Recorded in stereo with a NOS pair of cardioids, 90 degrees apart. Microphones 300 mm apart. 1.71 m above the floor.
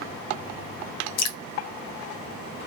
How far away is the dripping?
About 0.6 m.